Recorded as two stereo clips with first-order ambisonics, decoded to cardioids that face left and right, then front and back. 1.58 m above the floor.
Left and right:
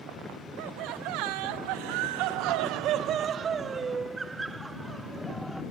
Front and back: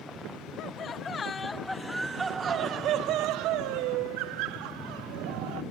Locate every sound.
0.6 s laughter: 55° right; by 5.6 s straight behind